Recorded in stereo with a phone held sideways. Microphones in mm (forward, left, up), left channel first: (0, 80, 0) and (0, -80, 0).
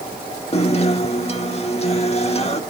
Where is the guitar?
40° left (ahead or behind), 1.2 m.